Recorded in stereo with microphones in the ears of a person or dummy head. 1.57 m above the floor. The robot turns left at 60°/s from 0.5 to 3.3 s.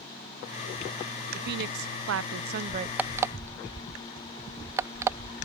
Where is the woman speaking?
55° right; by 2.9 s 145° right.